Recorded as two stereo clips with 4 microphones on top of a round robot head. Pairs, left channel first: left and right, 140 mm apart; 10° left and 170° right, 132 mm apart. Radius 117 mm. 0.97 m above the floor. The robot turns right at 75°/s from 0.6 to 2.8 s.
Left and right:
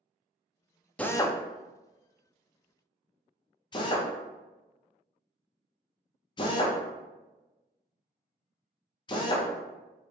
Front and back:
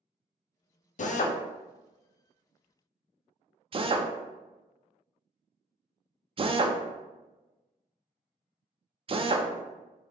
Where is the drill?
10° left, 0.6 m; by 9.5 s 145° left, 0.6 m.